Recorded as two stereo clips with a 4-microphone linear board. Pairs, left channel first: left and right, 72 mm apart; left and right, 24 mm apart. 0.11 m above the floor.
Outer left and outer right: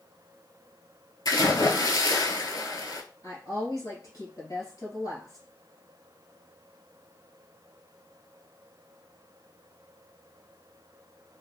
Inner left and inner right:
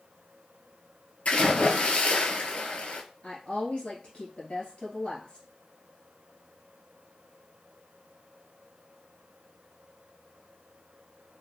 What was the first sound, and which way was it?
A splash, 55° left (ahead or behind).